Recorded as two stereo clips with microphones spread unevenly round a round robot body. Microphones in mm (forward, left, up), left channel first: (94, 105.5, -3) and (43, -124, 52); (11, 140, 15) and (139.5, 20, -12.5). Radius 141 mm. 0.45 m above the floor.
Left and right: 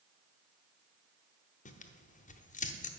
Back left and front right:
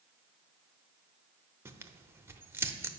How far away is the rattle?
No rattle in this recording.